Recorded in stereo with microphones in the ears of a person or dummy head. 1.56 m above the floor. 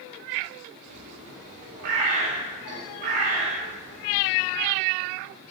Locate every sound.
0.9 s a bird: 45° right (ahead or behind), 1.5 m